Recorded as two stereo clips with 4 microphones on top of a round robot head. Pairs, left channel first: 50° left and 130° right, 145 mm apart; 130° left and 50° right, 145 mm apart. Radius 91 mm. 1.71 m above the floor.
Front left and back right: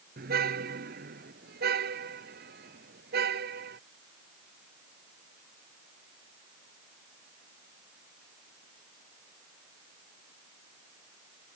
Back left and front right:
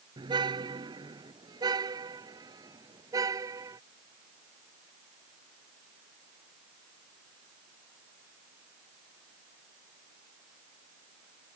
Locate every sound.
0.2 s a car horn: 110° right; by 3.8 s 115° right